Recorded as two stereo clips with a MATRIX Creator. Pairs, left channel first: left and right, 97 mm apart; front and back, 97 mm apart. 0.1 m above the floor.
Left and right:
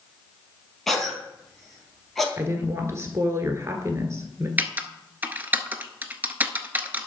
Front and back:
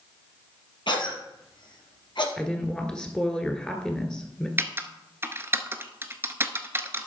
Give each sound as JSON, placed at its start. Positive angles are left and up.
{"t": 0.9, "sound": "a cough", "azimuth_deg": 5, "distance_m": 3.0}
{"t": 2.4, "sound": "a woman speaking", "azimuth_deg": -75, "distance_m": 1.5}
{"t": 4.6, "sound": "typing on a keyboard", "azimuth_deg": -145, "distance_m": 0.7}